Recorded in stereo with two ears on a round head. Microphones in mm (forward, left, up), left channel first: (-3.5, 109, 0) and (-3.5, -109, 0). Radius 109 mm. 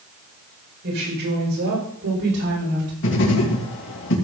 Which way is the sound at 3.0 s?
55° left (ahead or behind).